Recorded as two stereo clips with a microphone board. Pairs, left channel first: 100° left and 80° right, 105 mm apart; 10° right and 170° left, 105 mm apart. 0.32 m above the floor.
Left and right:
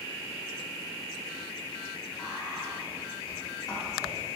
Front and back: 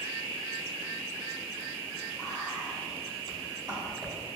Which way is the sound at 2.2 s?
145° left.